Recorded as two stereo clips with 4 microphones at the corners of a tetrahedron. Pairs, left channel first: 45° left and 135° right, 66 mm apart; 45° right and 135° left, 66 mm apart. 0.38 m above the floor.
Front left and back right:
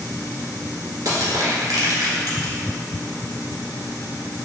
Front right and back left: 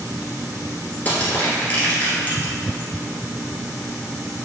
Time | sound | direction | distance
1.1 | crushing | 105° right | 1.4 m